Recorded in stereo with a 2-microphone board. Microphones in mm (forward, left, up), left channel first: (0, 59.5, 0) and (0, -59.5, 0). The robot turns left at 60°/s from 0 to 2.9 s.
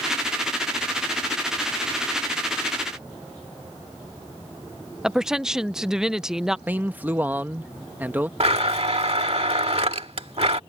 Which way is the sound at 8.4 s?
60° right (ahead or behind).